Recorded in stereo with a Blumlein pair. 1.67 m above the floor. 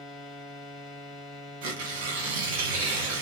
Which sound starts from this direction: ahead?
A machine running, at 0.0 s.